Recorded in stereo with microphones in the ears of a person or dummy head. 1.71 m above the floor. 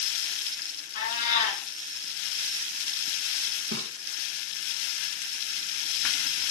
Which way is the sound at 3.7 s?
80° right.